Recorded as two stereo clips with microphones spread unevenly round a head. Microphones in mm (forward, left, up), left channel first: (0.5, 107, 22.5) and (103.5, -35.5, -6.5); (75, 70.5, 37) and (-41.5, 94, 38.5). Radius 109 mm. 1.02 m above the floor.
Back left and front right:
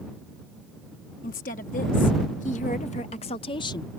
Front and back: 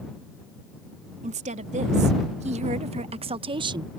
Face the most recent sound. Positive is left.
turn(degrees=-160)